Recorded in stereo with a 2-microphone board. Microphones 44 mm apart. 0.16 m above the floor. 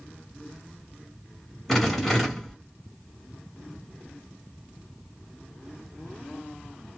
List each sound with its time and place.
1.7 s a rattle: 5° left (ahead or behind), 1.2 m